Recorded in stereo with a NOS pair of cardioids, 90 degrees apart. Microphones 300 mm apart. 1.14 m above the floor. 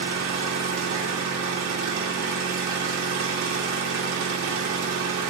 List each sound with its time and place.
0.0 s an engine running: 70° right, 2.5 m